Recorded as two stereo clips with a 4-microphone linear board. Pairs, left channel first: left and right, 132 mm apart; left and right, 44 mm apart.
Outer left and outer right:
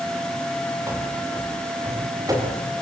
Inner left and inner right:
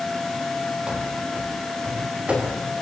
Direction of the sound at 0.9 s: 20° right (ahead or behind).